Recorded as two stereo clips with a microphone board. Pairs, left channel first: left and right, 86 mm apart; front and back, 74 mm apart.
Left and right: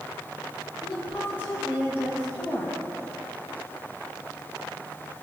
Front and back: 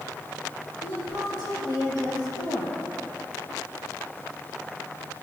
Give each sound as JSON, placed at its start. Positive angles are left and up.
{"t": 0.8, "sound": "a woman speaking", "azimuth_deg": 160, "distance_m": 5.5}